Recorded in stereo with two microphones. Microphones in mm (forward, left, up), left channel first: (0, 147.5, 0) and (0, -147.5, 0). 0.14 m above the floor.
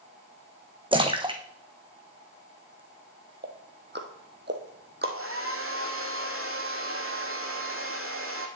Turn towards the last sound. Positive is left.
turn(degrees=-50)  # may be behind; listen again after turning